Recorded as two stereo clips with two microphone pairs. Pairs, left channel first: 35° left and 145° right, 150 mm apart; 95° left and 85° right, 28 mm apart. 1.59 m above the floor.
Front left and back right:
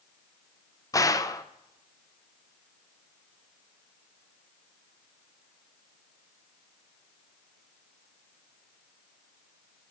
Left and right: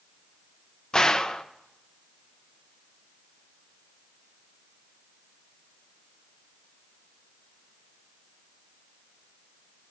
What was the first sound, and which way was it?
A gunshot, 65° left.